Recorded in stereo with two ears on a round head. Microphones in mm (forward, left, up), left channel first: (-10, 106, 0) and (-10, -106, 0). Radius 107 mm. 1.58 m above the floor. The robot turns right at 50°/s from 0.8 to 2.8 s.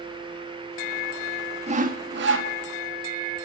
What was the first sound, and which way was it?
Sawing, 150° right.